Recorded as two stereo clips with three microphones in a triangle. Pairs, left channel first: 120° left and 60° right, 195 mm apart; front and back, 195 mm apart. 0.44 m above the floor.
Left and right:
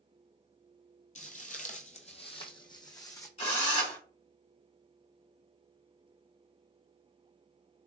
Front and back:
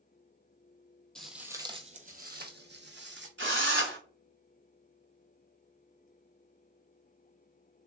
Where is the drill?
175° left, 1.2 m.